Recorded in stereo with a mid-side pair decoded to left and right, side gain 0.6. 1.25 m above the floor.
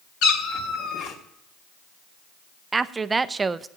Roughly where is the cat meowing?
Ahead left.